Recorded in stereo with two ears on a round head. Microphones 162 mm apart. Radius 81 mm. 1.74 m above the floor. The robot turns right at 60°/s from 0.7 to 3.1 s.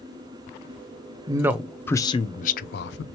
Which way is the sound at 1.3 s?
25° right.